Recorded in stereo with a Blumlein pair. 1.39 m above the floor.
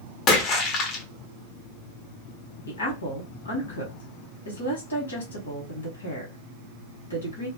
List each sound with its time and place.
0.3 s a splash: 30° left, 0.8 m
2.7 s a woman speaking: 70° left, 1.2 m